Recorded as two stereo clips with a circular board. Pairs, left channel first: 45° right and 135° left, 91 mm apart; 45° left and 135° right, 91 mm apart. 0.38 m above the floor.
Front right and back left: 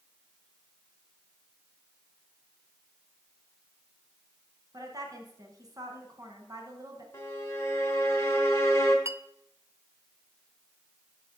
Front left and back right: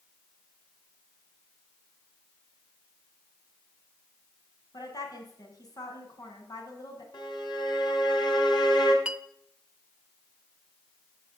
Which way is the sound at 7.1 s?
15° left.